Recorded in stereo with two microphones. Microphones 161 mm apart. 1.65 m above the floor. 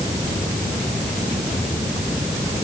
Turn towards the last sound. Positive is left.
No sound to turn to.